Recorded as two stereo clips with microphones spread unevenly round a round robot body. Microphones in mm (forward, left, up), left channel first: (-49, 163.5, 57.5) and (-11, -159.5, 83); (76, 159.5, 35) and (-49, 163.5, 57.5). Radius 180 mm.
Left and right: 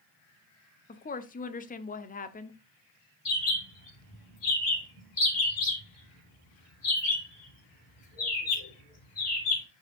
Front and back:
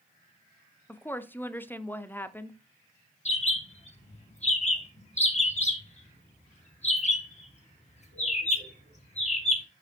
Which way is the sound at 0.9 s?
50° left.